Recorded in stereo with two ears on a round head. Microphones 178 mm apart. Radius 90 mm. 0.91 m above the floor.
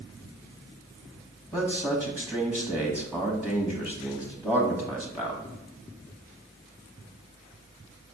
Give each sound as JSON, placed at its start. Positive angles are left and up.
{"t": 1.5, "sound": "a man speaking", "side_deg": 10, "distance_m": 1.2}